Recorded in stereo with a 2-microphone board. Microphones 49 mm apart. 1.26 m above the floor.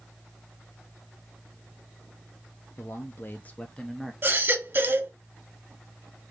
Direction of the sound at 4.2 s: 45° right (ahead or behind).